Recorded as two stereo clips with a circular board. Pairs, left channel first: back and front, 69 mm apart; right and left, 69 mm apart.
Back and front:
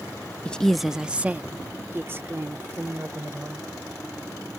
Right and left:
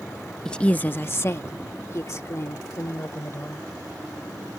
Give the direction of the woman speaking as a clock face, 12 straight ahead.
5 o'clock.